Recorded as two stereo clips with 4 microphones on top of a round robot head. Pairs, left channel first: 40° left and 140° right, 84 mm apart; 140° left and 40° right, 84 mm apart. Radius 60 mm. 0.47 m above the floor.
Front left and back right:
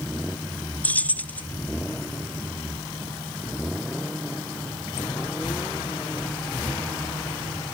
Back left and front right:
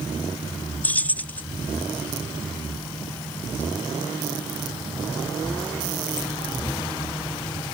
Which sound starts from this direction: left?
Keys jangling, at 0.8 s.